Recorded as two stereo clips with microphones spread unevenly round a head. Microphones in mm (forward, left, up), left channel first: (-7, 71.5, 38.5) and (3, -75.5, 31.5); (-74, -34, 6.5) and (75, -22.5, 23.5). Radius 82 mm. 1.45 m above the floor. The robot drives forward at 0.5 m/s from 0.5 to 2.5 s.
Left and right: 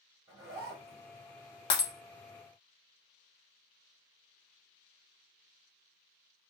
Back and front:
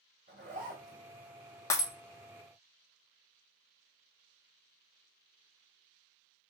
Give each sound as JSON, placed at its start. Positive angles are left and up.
{"t": 0.3, "sound": "a zipper", "azimuth_deg": -25, "distance_m": 3.0}
{"t": 1.7, "sound": "breaking glass", "azimuth_deg": 115, "distance_m": 0.6}